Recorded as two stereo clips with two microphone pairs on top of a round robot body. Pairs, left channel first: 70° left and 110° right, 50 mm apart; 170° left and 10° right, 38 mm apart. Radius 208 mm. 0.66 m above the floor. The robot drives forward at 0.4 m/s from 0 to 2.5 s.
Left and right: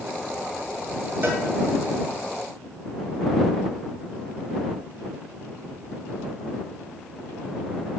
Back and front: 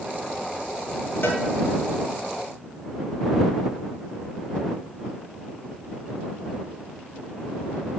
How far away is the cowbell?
About 1.9 m.